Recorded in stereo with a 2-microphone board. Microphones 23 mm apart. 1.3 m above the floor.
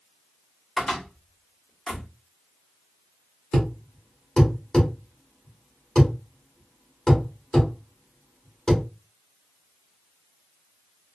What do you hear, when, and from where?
0.8 s a cupboard door: 15° left (ahead or behind), 1.3 m
3.5 s a thud: 35° left (ahead or behind), 1.5 m